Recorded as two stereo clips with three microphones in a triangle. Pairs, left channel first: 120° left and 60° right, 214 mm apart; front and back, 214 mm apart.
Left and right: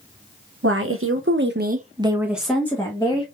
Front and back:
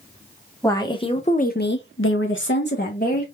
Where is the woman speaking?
75° right, 0.8 m; by 3.2 s 50° left, 1.0 m.